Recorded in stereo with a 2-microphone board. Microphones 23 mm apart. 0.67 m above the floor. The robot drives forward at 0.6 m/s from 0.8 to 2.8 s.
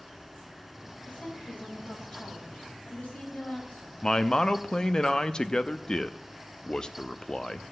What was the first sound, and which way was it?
A woman speaking, 65° left (ahead or behind).